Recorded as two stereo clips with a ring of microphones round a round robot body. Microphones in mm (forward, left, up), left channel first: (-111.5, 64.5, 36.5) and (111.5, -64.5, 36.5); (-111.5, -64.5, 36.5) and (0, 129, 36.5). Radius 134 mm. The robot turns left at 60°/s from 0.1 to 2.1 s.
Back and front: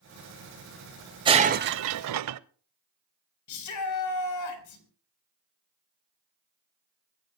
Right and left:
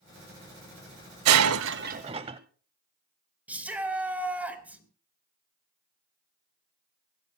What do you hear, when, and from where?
1.2 s breaking glass: 40° left, 0.5 m; by 2.4 s 10° right, 0.5 m
3.5 s a shout: 145° left, 4 m